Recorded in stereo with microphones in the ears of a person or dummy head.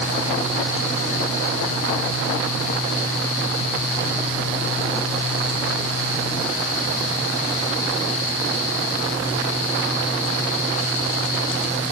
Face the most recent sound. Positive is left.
No sound to turn to.